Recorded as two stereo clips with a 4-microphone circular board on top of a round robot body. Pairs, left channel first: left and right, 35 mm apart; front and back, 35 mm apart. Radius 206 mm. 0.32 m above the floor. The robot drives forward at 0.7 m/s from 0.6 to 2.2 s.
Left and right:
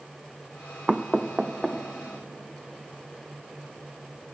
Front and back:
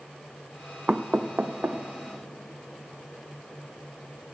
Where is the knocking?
155° right, 0.6 m; by 1.8 s 175° right, 1.0 m.